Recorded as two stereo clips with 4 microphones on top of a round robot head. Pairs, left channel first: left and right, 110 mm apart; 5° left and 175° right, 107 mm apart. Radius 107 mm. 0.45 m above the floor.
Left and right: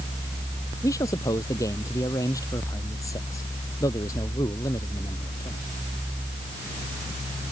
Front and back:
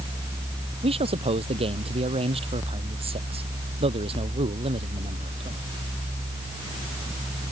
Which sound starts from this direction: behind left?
A man speaking, at 0.8 s.